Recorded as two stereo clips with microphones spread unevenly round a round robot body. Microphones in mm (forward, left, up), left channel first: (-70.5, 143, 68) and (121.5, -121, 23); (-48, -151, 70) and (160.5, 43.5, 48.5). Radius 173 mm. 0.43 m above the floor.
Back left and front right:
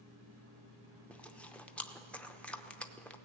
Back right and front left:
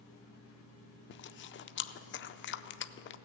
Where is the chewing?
140° right, 0.5 m.